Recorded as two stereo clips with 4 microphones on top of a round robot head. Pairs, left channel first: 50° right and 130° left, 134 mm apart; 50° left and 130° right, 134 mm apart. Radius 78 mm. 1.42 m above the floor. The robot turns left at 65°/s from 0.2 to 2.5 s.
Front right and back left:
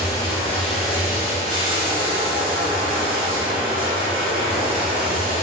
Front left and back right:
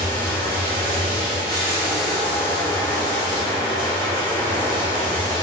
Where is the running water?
100° right, 0.9 m; by 5.4 s 110° left, 0.9 m.